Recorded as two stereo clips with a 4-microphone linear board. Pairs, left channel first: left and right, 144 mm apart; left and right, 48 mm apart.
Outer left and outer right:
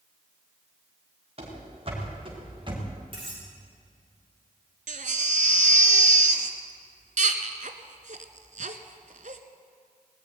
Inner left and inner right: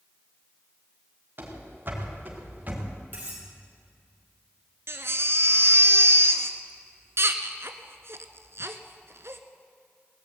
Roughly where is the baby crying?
Right.